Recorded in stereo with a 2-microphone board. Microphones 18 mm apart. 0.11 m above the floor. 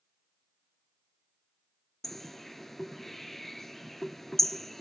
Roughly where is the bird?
Centre.